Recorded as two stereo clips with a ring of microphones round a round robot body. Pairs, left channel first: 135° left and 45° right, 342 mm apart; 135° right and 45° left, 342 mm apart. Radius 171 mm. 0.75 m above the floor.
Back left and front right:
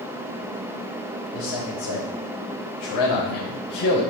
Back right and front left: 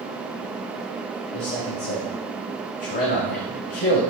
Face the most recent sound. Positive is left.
turn(degrees=160)